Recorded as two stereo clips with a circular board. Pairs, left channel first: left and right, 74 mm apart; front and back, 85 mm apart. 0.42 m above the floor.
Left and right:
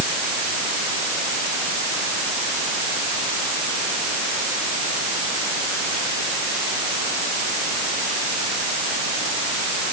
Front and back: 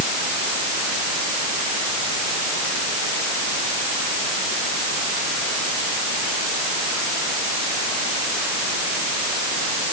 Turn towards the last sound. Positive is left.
No sound to turn to.